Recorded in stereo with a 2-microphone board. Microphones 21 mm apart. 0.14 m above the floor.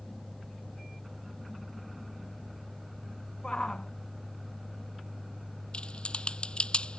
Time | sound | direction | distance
3.4 | a shout | 40° left (ahead or behind) | ?
5.7 | typing on a keyboard | 55° left (ahead or behind) | ?